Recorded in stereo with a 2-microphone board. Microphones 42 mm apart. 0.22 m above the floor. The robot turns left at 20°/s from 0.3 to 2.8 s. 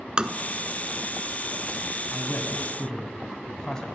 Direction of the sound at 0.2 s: 25° right (ahead or behind).